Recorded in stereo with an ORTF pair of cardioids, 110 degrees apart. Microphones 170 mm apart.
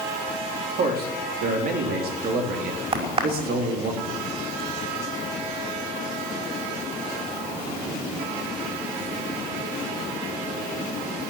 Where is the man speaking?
65° right, 3.5 m.